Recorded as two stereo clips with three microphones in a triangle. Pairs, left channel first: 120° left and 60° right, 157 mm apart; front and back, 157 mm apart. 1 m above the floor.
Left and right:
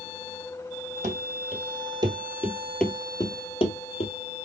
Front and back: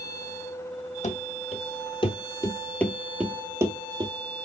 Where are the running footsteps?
30° right, 1.7 m; by 4.1 s 125° left, 1.4 m.